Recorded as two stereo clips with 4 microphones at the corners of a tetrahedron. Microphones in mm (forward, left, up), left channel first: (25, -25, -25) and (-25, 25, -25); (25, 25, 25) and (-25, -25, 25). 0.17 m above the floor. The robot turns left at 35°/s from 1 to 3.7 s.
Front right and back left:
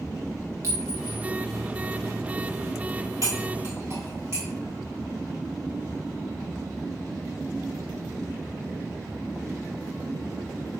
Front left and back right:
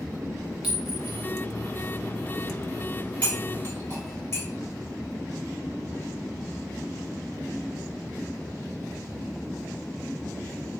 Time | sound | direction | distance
0.6 | a clink | 155° left | 1.2 m
3.2 | cutlery clinking | 110° left | 1.8 m